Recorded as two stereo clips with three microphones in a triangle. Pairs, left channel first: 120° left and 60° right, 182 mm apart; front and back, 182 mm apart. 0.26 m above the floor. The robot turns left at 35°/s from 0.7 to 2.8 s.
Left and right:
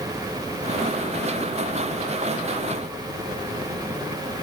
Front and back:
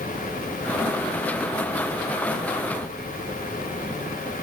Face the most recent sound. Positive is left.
No sound to turn to.